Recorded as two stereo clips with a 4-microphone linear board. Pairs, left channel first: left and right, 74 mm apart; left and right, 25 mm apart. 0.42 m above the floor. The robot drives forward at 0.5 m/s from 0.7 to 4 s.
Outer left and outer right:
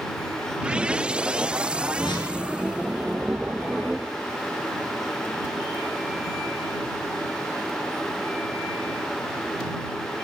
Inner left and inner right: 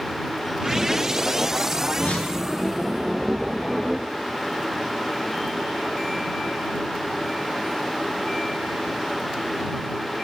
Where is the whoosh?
80° left, 5.5 m; by 2.4 s 75° left (ahead or behind), 5.5 m.